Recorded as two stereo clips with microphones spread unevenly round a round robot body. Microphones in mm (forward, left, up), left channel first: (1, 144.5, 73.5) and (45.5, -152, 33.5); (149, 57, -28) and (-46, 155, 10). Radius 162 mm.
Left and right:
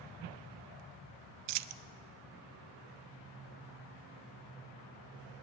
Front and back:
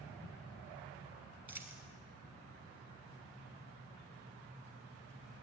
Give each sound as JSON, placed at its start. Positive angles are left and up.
{"t": 1.5, "sound": "a dropped coin", "azimuth_deg": -120, "distance_m": 0.6}